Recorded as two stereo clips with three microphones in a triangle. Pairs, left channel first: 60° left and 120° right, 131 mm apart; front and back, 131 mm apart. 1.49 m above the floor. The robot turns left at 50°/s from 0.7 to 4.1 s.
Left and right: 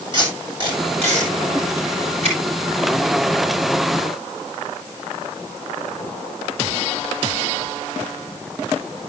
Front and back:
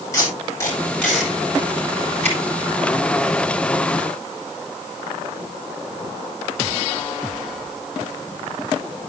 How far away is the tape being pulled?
About 7.5 m.